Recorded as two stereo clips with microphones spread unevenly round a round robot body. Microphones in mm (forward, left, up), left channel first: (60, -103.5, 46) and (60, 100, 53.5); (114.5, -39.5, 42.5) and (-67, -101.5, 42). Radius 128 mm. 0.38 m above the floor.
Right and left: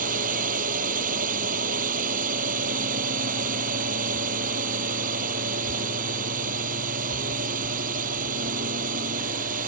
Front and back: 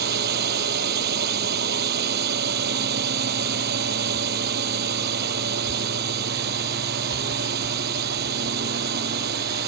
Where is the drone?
150° left.